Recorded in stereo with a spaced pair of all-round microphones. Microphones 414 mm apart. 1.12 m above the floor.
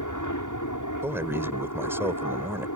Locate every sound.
0.0 s an aircraft: 45° left (ahead or behind)
1.0 s a man speaking: 5° right (ahead or behind)